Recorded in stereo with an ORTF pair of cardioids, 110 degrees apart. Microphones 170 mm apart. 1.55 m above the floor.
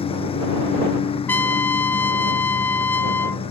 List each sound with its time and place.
0.0 s a lawn mower: 35° left
1.3 s a trumpet: 10° left